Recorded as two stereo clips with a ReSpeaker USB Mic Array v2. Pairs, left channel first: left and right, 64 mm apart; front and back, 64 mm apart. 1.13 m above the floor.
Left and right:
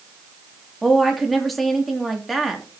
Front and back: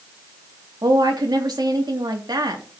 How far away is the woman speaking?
About 2.5 m.